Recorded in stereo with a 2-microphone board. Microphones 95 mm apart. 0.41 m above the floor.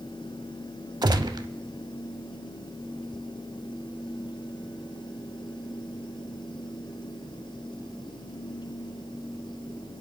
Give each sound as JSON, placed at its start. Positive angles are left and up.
{"t": 1.0, "sound": "a gunshot", "side_deg": -50, "distance_m": 0.8}